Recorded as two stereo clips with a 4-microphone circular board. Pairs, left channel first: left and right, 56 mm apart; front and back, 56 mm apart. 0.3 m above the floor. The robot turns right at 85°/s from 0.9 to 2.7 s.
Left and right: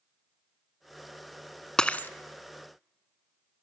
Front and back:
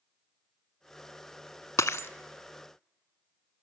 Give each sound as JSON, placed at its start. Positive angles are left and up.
{"t": 1.8, "sound": "breaking glass", "azimuth_deg": 15, "distance_m": 0.7}